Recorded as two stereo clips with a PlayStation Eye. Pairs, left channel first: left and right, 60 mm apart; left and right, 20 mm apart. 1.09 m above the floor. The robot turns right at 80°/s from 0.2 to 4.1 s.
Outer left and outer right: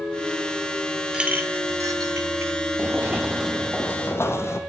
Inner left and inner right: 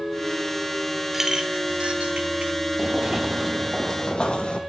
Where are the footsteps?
35° right (ahead or behind), 1.3 m; by 4.6 s 50° left (ahead or behind), 1.9 m.